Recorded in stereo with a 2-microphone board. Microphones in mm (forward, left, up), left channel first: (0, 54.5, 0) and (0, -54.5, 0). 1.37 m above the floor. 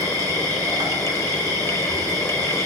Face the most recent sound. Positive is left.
turn(degrees=-35)  # may be behind; listen again after turning